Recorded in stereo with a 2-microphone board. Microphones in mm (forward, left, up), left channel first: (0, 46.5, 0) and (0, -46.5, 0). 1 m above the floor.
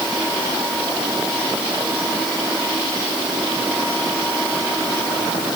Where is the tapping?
I don't hear tapping.